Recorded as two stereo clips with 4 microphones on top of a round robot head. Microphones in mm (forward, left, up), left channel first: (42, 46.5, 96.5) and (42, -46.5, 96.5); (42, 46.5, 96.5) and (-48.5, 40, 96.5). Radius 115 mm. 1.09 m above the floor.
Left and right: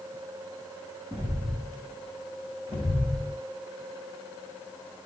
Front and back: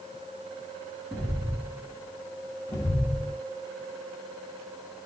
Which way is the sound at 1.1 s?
90° right.